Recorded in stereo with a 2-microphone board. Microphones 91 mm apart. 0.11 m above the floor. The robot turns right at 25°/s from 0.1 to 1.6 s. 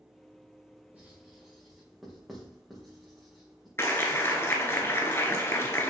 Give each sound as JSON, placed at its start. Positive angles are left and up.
{"t": 0.9, "sound": "writing", "side_deg": -20, "distance_m": 4.0}
{"t": 3.8, "sound": "a clap", "side_deg": 25, "distance_m": 1.3}